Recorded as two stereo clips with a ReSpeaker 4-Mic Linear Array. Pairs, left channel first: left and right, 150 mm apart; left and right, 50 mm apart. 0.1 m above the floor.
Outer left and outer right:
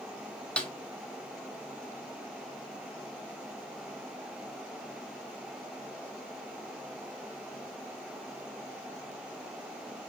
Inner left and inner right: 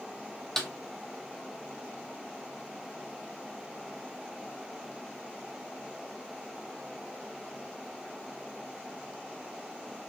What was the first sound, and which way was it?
A snare drum, 10° left (ahead or behind).